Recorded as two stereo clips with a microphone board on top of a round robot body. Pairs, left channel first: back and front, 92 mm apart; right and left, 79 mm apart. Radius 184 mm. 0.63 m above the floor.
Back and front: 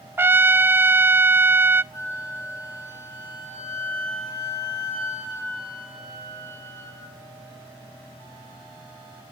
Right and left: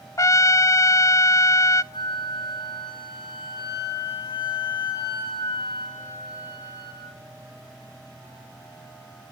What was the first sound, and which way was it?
A trumpet, 60° right.